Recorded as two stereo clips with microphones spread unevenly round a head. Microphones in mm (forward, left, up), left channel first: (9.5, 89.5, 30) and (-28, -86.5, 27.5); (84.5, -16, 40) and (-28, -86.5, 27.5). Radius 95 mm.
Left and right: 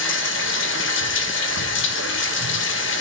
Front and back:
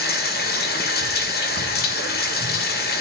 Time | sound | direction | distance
0.0 | running water | 50° left | 1.8 m